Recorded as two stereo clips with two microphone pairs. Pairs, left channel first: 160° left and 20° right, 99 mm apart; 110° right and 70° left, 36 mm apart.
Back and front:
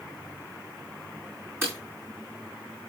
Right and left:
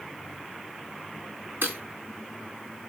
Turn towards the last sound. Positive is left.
turn(degrees=45)